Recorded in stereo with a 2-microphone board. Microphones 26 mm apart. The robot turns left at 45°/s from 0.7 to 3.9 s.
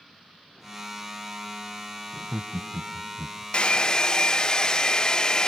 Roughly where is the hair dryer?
Left.